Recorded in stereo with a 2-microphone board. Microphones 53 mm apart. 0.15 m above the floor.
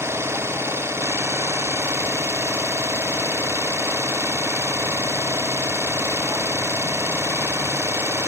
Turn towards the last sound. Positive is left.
turn(degrees=-50)  # may be behind; listen again after turning